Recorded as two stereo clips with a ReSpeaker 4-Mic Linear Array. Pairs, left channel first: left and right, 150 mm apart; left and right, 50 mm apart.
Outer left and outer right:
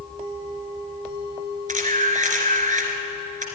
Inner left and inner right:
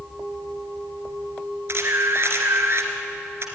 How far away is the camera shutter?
About 2.5 m.